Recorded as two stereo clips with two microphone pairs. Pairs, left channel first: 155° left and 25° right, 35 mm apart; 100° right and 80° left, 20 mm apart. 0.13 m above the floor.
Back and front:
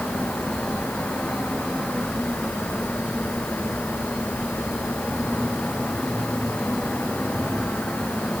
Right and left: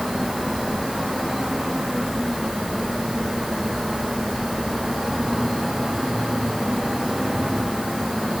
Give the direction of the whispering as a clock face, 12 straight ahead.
I don't hear whispering.